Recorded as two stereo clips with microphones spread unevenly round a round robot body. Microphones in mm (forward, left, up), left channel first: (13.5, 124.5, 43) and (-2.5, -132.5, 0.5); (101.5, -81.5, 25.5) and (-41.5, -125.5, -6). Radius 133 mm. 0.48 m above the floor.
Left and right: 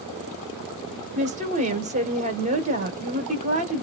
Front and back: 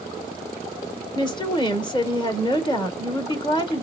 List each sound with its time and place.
1.1 s a woman speaking: 45° right, 1.2 m